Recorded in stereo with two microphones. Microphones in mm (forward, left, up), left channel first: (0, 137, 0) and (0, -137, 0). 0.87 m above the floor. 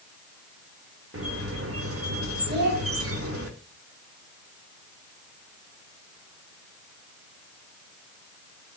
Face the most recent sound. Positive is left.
turn(degrees=-40)  # may be behind; listen again after turning